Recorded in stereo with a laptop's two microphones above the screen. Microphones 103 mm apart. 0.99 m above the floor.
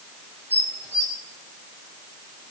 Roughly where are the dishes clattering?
Left.